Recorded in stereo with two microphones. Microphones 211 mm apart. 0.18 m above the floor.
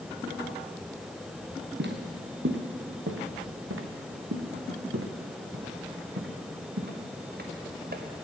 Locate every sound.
1.8 s footsteps: 55° right (ahead or behind), 1.8 m; by 8.0 s 45° right (ahead or behind), 3 m